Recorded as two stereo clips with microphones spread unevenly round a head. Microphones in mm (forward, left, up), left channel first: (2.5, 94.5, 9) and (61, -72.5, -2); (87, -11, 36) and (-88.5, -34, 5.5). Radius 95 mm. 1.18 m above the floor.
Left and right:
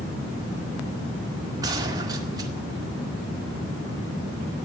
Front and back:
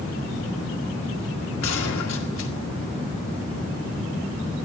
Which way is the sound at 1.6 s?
Straight ahead.